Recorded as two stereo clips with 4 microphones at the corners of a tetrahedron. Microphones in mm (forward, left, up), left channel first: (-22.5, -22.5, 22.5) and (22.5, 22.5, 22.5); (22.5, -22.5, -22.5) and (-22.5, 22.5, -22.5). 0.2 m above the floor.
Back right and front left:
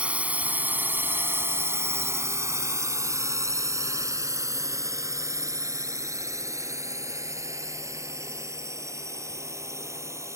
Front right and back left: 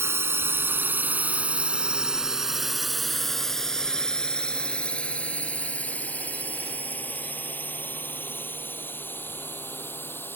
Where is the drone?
110° left; by 10.4 s 10° left.